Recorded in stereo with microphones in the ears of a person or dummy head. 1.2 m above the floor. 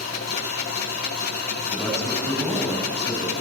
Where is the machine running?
55° left (ahead or behind), 1.7 m.